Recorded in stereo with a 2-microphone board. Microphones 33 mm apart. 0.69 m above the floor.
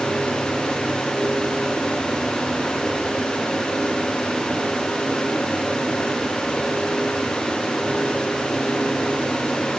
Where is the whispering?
I don't hear whispering.